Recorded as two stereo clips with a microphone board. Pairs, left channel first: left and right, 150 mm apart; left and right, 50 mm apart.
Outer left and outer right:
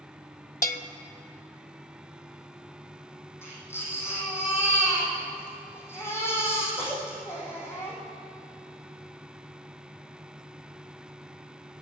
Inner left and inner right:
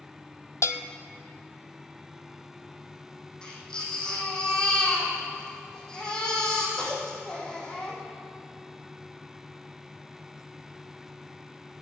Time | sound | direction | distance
0.6 | a bell | 80° left | 0.6 m
3.4 | a baby crying | 15° left (ahead or behind) | 4 m